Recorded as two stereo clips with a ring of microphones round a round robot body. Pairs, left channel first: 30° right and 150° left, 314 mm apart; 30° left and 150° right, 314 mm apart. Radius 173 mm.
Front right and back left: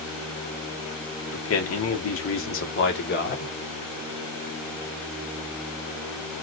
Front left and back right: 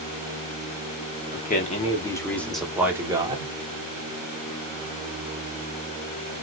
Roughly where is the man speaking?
Ahead.